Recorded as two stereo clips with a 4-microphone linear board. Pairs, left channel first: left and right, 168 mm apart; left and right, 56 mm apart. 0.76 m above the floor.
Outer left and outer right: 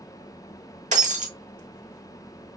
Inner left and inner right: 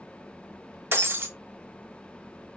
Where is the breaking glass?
45° right (ahead or behind), 1.1 m.